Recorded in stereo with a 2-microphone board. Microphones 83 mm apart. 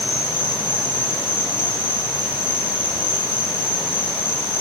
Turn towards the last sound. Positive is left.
turn(degrees=25)  # may be behind; listen again after turning